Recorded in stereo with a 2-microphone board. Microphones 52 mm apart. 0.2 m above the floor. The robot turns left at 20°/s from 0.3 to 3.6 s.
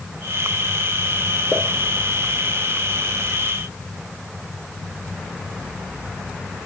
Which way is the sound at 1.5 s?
Centre (ahead or behind).